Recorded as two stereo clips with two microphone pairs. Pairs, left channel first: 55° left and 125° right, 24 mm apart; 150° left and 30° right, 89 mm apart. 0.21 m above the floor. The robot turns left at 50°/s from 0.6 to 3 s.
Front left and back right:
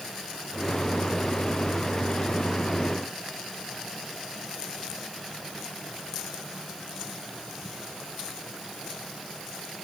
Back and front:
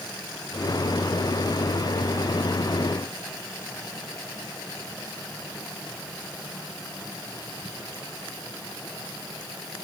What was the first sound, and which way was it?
Only background noise.